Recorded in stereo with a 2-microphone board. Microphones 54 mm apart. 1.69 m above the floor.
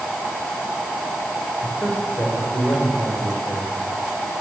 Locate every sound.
1.6 s a man speaking: 45° left (ahead or behind), 6.5 m